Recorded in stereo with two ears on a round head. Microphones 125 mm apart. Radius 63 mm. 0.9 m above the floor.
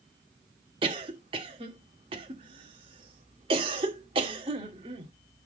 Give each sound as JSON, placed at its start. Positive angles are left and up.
{"t": 0.8, "sound": "a cough", "side_deg": -40, "distance_m": 2.0}